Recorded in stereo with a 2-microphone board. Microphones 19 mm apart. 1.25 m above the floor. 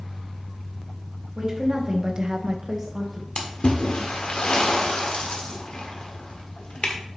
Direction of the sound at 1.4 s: 25° right (ahead or behind).